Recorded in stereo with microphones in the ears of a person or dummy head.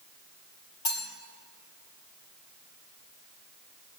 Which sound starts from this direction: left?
Cutlery clinking, at 0.8 s.